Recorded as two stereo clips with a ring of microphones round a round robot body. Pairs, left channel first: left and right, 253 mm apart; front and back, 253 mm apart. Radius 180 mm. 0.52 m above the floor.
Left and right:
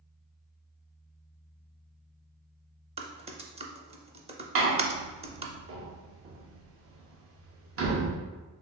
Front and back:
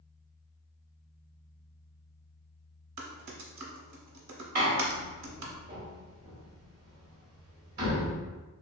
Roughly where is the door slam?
Behind right.